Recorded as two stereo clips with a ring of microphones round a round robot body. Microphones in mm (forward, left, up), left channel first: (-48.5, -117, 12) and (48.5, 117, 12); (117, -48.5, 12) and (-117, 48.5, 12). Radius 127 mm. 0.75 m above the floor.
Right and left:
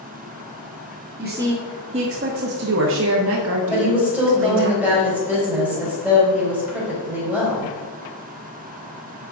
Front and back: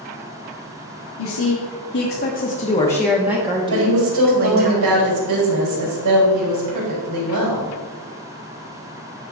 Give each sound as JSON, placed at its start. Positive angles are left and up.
{"t": 1.2, "sound": "a woman speaking", "azimuth_deg": -10, "distance_m": 1.6}
{"t": 3.7, "sound": "a woman speaking", "azimuth_deg": 150, "distance_m": 3.5}